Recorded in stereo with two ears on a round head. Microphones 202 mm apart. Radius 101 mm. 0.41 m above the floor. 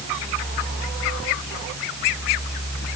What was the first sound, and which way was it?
Only background noise.